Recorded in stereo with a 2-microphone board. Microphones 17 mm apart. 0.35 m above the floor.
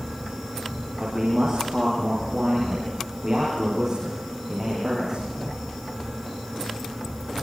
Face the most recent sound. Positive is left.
turn(degrees=-30)  # may be behind; listen again after turning